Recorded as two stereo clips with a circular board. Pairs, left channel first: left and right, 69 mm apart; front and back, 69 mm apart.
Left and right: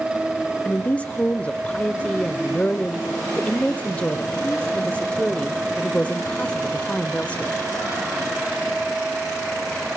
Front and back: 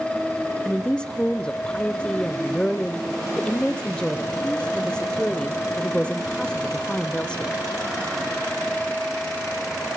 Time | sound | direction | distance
0.7 | a woman speaking | 55° left | 1.1 m